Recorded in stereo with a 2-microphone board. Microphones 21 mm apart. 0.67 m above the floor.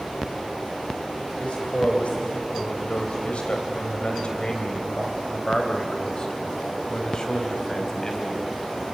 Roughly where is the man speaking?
Left.